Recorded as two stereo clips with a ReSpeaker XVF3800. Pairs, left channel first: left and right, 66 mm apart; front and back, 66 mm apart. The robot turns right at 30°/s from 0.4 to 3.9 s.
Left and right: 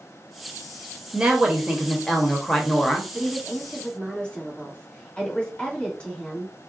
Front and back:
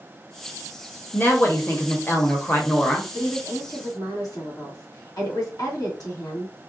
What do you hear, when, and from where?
1.1 s a woman speaking: 25° right, 1.0 m; by 3.0 s 30° left, 1.0 m
3.1 s a woman speaking: 5° right, 2.5 m; by 6.5 s 20° left, 2.5 m